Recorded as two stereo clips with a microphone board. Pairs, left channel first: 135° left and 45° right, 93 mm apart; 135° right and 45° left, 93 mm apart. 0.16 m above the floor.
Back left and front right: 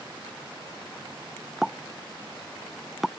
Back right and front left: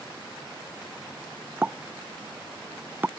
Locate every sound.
1.6 s a pop: 45° left